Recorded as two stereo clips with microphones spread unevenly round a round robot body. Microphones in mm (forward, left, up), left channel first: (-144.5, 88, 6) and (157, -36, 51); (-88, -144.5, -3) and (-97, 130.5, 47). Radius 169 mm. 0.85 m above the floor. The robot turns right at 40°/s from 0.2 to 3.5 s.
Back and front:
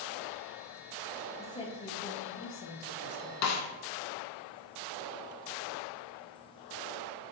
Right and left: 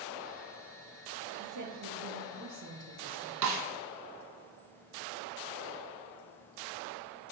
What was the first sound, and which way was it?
A woman speaking, 85° left.